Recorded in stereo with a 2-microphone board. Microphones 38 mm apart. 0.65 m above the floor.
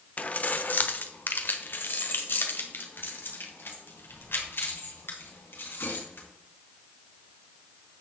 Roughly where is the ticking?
No ticking in this recording.